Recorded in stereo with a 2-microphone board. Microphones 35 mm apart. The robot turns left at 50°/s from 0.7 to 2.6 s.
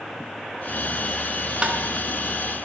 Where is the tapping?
25° right (ahead or behind), 3.5 m; by 1.8 s 20° right (ahead or behind), 3.5 m.